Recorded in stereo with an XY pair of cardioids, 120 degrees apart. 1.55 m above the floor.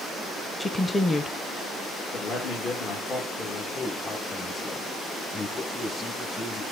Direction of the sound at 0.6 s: 15° left.